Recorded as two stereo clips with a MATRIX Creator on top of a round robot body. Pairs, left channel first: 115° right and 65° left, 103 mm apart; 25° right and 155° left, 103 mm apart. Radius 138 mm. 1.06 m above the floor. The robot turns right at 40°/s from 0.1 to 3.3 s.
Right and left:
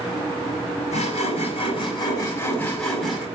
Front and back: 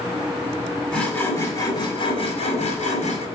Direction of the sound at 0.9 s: 100° right.